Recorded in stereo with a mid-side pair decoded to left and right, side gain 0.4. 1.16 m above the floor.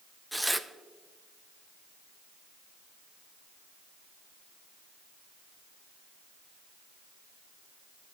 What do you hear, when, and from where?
0.3 s tearing paper: 5° right, 0.6 m